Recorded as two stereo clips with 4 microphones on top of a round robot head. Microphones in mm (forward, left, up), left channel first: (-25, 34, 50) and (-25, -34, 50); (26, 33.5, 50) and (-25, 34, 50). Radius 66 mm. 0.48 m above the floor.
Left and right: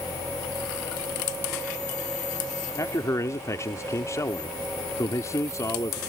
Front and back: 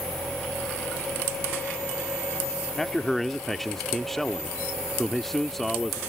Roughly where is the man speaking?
Left.